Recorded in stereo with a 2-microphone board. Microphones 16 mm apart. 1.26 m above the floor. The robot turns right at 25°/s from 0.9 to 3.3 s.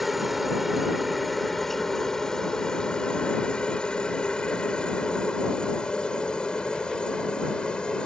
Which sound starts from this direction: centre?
A helicopter, at 0.0 s.